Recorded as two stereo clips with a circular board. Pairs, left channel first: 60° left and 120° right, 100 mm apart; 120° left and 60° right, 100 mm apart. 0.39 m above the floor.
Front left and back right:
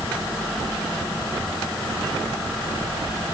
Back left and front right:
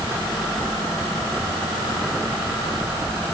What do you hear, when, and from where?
Only background noise.